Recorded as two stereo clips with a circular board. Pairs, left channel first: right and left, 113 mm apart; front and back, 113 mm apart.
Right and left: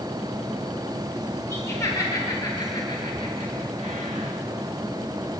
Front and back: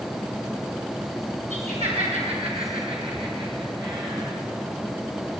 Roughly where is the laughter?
Behind.